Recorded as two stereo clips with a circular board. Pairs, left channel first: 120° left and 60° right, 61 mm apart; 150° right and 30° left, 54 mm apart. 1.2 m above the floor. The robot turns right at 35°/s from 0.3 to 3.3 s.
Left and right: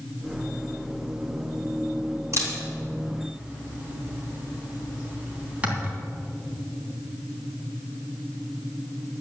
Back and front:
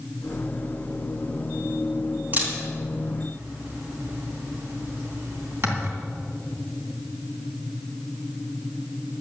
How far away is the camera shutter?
About 3 m.